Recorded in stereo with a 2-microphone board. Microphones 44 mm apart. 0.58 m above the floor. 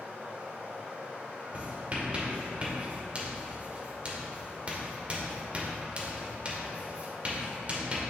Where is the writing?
35° right (ahead or behind), 1.7 m.